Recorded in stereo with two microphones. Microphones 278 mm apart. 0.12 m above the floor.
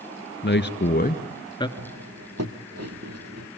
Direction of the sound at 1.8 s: 65° right (ahead or behind).